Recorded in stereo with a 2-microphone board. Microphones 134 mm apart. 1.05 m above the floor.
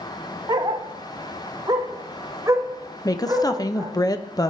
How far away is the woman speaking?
About 0.5 m.